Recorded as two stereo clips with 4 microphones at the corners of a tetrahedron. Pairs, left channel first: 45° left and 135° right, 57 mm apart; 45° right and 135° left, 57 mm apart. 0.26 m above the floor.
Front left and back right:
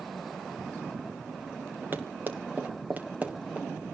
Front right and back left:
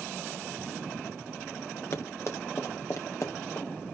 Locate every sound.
1.9 s running footsteps: 80° right, 3 m; by 3.7 s 65° right, 2.5 m